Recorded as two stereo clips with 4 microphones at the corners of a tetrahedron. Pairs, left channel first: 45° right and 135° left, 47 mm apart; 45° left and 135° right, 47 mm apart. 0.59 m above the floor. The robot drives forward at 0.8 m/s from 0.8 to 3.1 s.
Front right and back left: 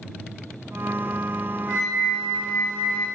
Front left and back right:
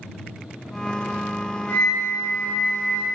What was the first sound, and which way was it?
A flute, 10° right.